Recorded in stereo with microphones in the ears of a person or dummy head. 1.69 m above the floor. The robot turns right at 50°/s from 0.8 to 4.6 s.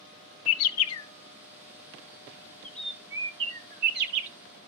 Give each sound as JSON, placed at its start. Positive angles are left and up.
{"t": 0.5, "sound": "a bird", "side_deg": 75, "distance_m": 0.6}